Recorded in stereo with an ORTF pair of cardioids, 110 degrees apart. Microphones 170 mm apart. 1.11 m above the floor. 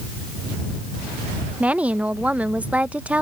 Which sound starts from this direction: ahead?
A woman speaking, at 1.6 s.